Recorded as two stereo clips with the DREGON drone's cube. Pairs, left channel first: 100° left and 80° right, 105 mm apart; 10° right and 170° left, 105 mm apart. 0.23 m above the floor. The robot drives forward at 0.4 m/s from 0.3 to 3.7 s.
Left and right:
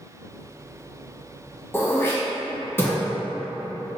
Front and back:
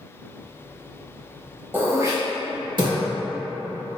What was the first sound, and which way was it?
Throat clearing, 120° left.